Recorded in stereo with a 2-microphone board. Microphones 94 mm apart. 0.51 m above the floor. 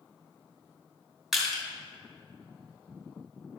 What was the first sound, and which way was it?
Crushing, 5° right (ahead or behind).